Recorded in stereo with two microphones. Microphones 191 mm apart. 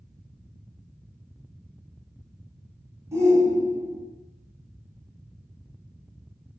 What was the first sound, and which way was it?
A shout, 15° right (ahead or behind).